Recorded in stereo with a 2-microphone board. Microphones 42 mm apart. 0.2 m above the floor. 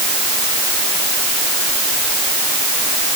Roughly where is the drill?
I don't hear a drill.